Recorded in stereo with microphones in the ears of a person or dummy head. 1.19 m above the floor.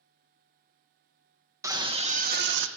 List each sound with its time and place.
1.6 s a scream: 15° right (ahead or behind), 0.8 m; by 2.7 s 65° right (ahead or behind), 0.6 m